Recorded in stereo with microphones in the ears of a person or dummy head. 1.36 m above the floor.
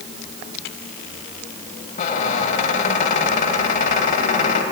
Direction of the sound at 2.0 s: 45° left (ahead or behind).